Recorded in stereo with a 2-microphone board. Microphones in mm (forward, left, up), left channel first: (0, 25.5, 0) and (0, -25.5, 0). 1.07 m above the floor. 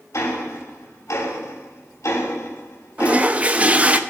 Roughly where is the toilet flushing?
Right.